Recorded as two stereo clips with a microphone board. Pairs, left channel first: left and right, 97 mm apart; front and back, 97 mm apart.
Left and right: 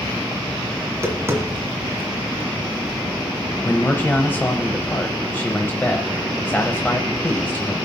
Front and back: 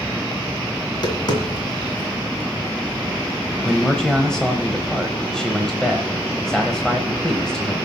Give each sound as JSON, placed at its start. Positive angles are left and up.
{"t": 0.8, "sound": "tapping", "azimuth_deg": -30, "distance_m": 2.0}
{"t": 3.6, "sound": "a man speaking", "azimuth_deg": 70, "distance_m": 1.0}